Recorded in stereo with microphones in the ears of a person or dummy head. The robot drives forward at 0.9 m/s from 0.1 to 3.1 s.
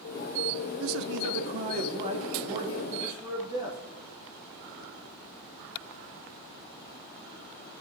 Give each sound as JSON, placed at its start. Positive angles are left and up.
{"t": 0.8, "sound": "a man speaking", "side_deg": -70, "distance_m": 0.7}